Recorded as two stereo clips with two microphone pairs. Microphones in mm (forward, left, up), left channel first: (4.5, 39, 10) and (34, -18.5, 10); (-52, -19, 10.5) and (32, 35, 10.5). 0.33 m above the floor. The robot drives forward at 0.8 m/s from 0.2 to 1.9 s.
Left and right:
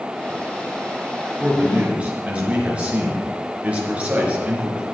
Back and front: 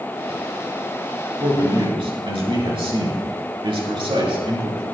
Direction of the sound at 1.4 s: 5° left.